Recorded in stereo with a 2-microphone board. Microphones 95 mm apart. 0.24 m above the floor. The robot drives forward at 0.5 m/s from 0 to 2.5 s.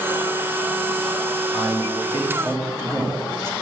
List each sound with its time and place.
1.5 s a man speaking: 30° right (ahead or behind), 1.7 m; by 3.5 s 25° right (ahead or behind), 1.8 m